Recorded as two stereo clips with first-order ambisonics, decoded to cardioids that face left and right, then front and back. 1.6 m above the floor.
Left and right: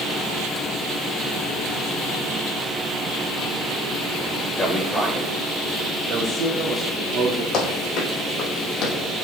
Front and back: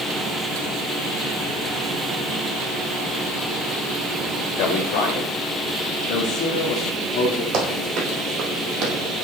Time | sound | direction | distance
4.6 | a man speaking | 10° left | 1.2 m
7.5 | running footsteps | 140° left | 3.5 m